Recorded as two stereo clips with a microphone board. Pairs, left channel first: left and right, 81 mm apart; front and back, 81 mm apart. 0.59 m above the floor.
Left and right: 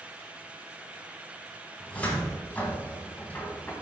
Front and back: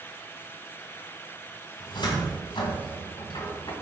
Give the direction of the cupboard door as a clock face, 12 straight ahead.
11 o'clock.